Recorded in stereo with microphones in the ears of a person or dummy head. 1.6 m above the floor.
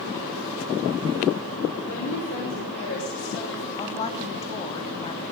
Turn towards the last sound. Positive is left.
turn(degrees=30)  # may be behind; listen again after turning